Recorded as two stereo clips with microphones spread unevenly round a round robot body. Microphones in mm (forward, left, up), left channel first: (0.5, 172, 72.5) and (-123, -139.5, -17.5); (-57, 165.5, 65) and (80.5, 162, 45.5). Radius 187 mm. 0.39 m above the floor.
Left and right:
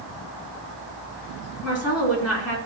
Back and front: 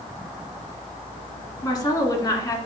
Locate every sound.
1.6 s a woman speaking: 115° left, 4 m